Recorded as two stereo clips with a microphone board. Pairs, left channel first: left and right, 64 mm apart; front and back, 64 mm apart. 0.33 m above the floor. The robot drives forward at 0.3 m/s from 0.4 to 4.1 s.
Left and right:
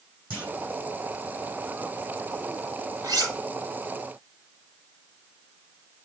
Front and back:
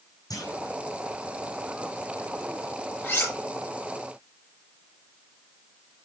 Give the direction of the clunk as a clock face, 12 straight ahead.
1 o'clock.